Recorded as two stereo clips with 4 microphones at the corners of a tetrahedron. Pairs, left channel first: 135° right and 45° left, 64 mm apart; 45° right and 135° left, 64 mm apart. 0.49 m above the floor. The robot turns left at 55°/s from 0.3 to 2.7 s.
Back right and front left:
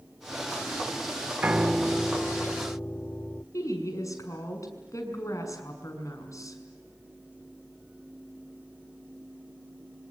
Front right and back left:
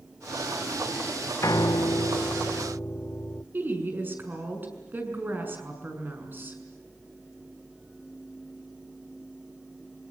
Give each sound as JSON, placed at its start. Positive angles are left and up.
{"t": 1.4, "sound": "a piano", "azimuth_deg": -20, "distance_m": 0.5}
{"t": 3.5, "sound": "a woman speaking", "azimuth_deg": -170, "distance_m": 6.5}